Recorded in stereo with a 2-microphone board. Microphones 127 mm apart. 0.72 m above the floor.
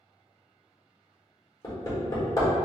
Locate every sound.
1.6 s hammering: 30° left (ahead or behind), 1.6 m